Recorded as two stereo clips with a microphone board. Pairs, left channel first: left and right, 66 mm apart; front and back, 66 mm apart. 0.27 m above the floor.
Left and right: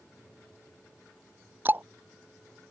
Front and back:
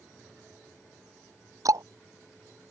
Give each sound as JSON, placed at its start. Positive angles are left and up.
{"t": 1.6, "sound": "ticking", "azimuth_deg": -150}